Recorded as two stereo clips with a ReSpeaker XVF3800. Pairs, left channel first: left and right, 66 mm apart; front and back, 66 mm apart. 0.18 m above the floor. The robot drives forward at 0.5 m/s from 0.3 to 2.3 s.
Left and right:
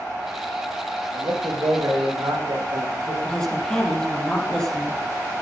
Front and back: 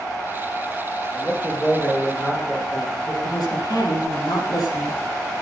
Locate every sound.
1.1 s a man speaking: 75° right, 7.5 m
3.2 s a woman speaking: 10° left, 5.5 m